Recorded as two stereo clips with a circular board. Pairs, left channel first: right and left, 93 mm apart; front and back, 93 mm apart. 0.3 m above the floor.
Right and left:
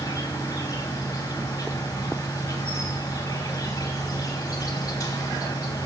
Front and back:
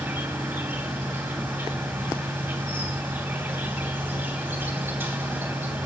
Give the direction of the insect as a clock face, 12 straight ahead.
4 o'clock.